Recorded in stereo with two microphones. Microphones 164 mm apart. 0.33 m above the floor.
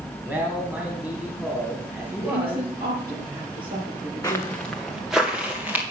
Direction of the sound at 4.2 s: 20° left (ahead or behind).